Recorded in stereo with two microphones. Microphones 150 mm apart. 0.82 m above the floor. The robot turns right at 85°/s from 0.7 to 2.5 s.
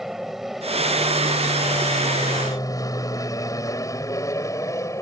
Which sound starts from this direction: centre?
An aircraft, at 0.0 s.